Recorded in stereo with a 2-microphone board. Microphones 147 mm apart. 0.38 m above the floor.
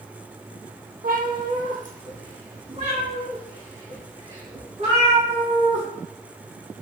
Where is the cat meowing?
70° right (ahead or behind), 1.1 m; by 5.8 s 40° right (ahead or behind), 4 m.